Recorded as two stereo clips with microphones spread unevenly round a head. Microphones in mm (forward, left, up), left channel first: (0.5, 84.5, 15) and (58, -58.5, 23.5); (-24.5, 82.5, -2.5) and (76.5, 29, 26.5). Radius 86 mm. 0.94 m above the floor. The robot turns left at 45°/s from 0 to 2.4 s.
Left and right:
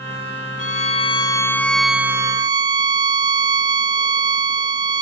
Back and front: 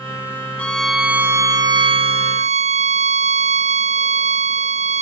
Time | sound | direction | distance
0.6 | a violin | 80° left | ?